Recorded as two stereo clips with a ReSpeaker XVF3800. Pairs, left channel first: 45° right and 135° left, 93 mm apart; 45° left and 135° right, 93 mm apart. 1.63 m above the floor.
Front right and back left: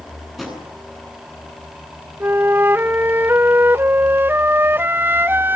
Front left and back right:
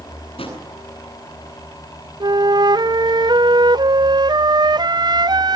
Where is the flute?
160° right, 0.7 m.